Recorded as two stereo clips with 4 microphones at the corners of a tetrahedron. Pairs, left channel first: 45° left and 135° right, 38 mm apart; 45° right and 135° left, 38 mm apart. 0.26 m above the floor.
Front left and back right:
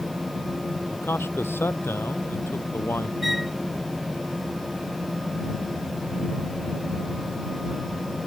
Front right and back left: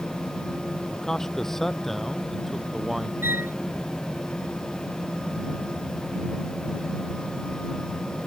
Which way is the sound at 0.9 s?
30° left.